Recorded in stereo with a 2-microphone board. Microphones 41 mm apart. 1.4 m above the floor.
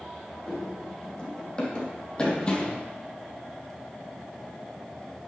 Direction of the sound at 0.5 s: 20° left (ahead or behind).